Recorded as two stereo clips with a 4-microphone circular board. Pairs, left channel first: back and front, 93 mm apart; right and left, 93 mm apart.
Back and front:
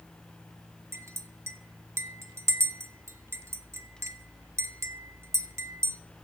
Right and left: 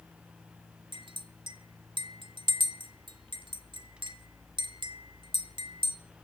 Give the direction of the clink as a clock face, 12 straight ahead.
10 o'clock.